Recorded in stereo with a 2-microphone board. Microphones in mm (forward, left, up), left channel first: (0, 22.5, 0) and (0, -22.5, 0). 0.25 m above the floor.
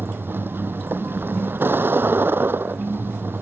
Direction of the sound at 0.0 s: 55° right (ahead or behind).